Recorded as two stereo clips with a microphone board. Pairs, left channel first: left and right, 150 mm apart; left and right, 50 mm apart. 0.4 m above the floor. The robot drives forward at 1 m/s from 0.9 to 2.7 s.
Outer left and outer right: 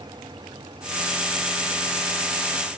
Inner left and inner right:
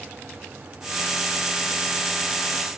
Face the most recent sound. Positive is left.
No sound to turn to.